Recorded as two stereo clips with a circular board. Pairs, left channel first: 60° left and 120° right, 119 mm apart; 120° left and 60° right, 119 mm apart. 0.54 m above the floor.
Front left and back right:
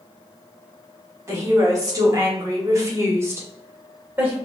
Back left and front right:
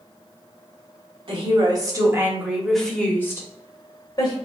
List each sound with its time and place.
1.3 s a woman speaking: 65° right, 1.4 m; by 4.3 s 165° left, 2 m